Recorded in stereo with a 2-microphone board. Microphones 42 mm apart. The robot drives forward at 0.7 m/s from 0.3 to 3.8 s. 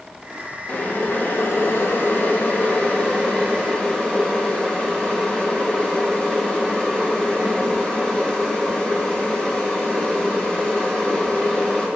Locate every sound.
0.7 s boiling: 40° left (ahead or behind), 1.1 m; by 11.9 s 25° left (ahead or behind), 1.7 m